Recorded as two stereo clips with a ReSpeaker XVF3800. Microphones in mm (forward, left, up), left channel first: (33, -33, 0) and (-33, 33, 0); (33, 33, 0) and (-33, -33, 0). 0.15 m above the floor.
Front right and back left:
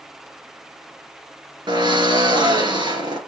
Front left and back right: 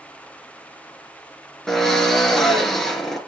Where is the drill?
130° left, 2.5 m.